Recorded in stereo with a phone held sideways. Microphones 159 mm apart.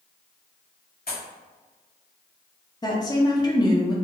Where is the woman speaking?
25° left (ahead or behind), 0.7 m.